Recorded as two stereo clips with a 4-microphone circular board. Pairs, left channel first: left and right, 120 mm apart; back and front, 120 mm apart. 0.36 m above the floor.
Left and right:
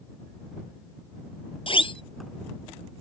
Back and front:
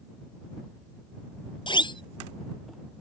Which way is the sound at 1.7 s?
130° left.